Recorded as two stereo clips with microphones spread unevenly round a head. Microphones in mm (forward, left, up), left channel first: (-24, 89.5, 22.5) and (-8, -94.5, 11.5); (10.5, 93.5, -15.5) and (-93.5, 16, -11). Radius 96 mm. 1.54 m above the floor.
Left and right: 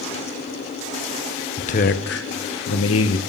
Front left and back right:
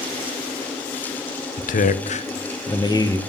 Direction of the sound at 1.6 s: 40° left.